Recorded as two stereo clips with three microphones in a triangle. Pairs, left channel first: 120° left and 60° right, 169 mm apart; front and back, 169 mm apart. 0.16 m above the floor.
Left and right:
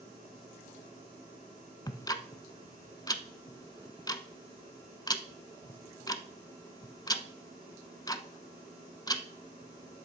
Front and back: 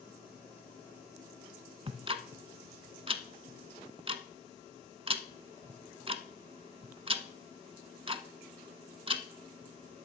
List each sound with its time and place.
1.9 s ticking: 165° left, 0.6 m